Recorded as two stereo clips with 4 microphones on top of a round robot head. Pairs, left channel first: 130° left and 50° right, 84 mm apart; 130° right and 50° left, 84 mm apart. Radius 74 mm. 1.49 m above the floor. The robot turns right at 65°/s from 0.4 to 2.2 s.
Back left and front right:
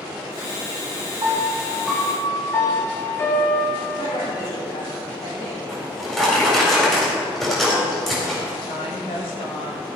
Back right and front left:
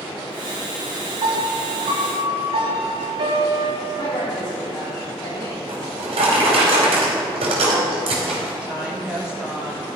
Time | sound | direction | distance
1.2 | a piano | 5° left | 1.8 m
4.0 | a woman speaking | 165° left | 3 m
5.7 | a drawer | 45° left | 4 m
8.6 | a woman speaking | 125° left | 3 m